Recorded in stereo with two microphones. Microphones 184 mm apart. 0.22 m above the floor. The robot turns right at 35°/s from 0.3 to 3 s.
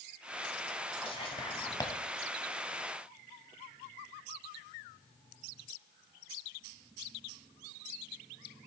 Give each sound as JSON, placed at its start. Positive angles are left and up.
{"t": 1.0, "sound": "whispering", "side_deg": 30, "distance_m": 1.1}